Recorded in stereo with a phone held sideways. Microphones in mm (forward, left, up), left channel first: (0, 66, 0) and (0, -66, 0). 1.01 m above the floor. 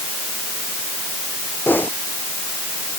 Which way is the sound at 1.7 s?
15° left (ahead or behind).